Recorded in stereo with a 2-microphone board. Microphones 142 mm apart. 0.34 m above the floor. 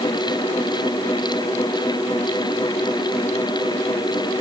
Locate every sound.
Only background noise.